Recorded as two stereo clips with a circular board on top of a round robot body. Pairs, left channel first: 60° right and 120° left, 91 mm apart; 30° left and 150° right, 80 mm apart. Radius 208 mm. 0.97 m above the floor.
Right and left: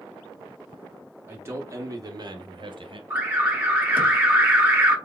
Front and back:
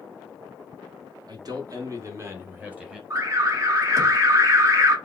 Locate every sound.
1.3 s a man speaking: 175° right, 1.9 m; by 3.0 s 130° left, 1.6 m
3.1 s an alarm: 175° right, 1.9 m